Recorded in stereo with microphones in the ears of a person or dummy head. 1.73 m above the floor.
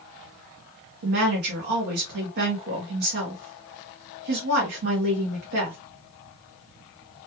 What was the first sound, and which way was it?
A woman speaking, 50° right (ahead or behind).